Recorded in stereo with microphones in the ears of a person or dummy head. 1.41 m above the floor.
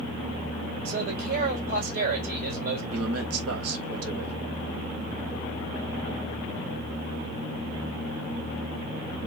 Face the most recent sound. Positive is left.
turn(degrees=-85)